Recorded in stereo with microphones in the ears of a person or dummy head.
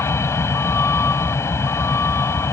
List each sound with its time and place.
0.0 s a vehicle: 15° left (ahead or behind)